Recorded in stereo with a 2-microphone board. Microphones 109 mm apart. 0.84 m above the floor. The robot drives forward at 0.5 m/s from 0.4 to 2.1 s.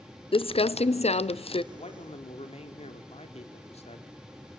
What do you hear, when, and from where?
0.3 s crumpling: 55° left (ahead or behind), 0.6 m
1.7 s a man speaking: 75° left (ahead or behind), 2 m; by 4.1 s 70° left (ahead or behind), 2 m